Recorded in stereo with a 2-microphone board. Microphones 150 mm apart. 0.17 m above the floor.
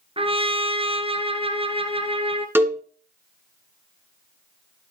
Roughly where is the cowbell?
Centre.